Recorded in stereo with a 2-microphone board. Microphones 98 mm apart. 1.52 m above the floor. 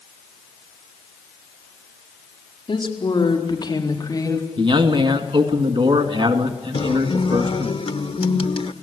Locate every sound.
2.7 s a woman speaking: 55° left (ahead or behind), 4.5 m; by 4.5 s 35° left (ahead or behind), 3.5 m
4.6 s a man speaking: 60° right (ahead or behind), 2.5 m
6.7 s a guitar: 70° left (ahead or behind), 1.1 m